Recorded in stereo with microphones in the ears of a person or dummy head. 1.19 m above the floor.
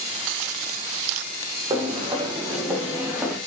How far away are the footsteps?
About 3 m.